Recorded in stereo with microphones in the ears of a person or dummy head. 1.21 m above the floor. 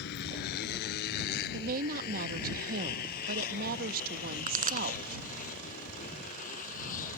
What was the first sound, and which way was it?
A motorcycle, 55° left (ahead or behind).